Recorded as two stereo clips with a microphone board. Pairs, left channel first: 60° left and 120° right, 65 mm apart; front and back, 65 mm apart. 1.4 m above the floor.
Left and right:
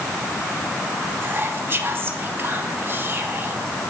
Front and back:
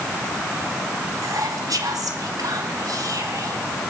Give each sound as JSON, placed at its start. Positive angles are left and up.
{"t": 1.2, "sound": "whispering", "azimuth_deg": -170, "distance_m": 2.0}